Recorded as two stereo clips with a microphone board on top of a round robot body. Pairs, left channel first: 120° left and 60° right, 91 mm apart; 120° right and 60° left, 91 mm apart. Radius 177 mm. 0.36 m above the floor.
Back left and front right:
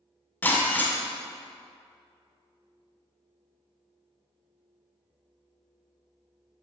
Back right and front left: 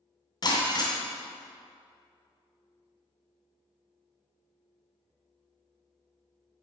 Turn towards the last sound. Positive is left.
turn(degrees=-165)